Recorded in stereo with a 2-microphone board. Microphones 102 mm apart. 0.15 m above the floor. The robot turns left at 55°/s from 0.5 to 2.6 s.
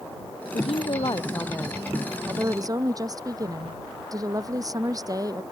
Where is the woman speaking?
75° left; by 5.4 s 35° right.